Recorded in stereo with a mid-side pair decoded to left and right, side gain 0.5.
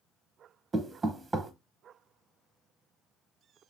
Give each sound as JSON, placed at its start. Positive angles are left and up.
{"t": 0.7, "sound": "knocking", "azimuth_deg": -30, "distance_m": 0.8}